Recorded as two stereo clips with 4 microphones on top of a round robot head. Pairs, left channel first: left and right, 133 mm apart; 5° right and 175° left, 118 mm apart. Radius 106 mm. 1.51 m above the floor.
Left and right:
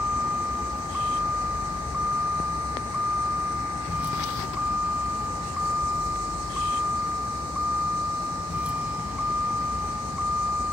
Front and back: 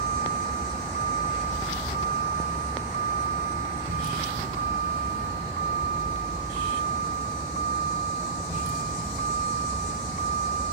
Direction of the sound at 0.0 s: 170° right.